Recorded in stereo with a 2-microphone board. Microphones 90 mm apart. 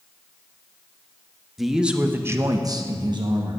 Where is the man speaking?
Centre (ahead or behind), 1.1 m; by 3.6 s 50° right (ahead or behind), 1.4 m.